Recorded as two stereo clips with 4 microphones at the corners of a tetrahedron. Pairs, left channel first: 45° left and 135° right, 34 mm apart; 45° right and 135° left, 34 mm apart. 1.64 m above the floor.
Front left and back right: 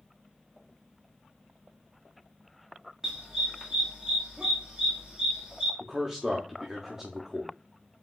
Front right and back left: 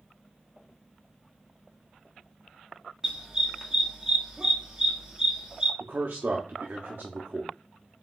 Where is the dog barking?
Straight behind, 1.2 m.